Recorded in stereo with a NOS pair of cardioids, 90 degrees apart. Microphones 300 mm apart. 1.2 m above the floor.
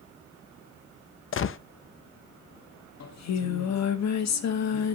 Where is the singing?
60° left, 2.0 m.